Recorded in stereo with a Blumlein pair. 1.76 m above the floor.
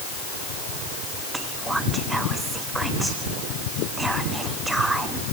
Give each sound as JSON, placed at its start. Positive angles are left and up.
{"t": 1.3, "sound": "whispering", "azimuth_deg": -5, "distance_m": 0.8}